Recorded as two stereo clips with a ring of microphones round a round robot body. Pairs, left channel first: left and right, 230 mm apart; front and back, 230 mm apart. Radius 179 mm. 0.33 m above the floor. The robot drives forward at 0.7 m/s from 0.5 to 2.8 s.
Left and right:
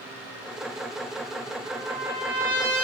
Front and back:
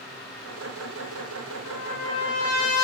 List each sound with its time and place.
1.6 s a trumpet: 15° right, 4 m